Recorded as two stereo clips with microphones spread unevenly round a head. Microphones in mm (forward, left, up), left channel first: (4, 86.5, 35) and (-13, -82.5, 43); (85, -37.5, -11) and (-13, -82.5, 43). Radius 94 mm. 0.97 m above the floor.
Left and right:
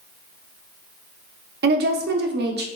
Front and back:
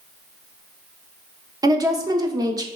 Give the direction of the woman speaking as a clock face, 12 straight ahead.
3 o'clock.